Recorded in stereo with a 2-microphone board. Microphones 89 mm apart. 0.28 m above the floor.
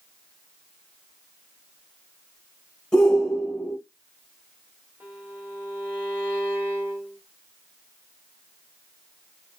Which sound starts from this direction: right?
A violin, at 5.0 s.